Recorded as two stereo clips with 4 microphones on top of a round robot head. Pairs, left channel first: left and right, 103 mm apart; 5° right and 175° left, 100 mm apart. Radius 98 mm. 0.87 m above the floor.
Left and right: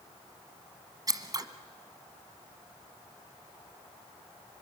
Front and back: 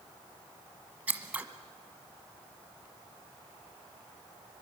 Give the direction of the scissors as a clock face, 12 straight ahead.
4 o'clock.